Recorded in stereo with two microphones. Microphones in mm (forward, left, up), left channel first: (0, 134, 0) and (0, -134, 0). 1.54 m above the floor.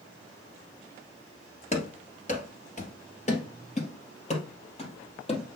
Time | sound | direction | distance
1.7 | running footsteps | 25° left (ahead or behind) | 1.6 m